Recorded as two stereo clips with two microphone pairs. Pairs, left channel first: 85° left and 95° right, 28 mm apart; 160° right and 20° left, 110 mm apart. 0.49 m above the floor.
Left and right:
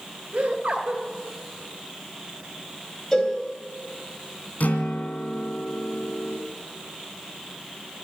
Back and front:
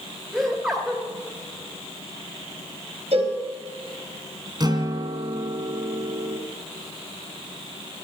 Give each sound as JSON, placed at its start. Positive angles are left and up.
{"t": 0.3, "sound": "laughter", "azimuth_deg": -60, "distance_m": 3.0}
{"t": 3.1, "sound": "a cowbell", "azimuth_deg": 20, "distance_m": 3.5}
{"t": 4.6, "sound": "a guitar", "azimuth_deg": 75, "distance_m": 2.0}